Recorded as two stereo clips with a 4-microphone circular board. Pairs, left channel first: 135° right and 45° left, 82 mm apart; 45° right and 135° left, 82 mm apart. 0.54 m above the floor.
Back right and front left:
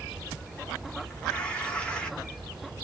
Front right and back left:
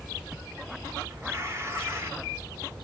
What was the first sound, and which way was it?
Tearing paper, 155° left.